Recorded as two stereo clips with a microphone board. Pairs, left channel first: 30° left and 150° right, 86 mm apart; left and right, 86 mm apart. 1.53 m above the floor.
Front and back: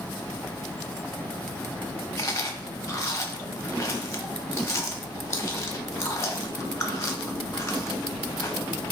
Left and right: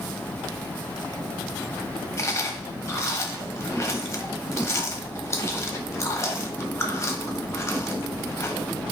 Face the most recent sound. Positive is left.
turn(degrees=60)